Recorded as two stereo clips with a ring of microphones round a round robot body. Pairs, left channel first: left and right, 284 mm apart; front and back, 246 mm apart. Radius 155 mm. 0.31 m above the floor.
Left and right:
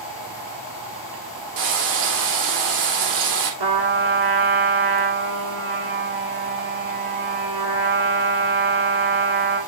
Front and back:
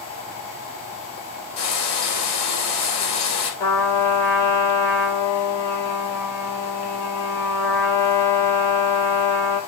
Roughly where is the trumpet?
Right.